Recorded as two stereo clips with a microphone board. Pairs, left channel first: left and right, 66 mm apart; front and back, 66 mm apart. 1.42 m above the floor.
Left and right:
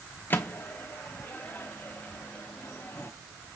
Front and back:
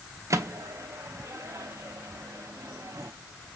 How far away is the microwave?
About 0.5 m.